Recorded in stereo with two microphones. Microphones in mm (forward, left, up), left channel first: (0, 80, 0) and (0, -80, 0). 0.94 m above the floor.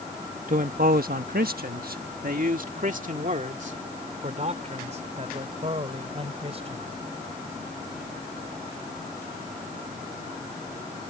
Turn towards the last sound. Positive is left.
turn(degrees=-40)  # may be behind; listen again after turning